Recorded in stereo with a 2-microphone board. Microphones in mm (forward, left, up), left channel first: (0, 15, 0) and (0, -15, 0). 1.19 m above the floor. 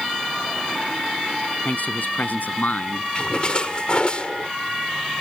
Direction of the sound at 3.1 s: 40° left (ahead or behind).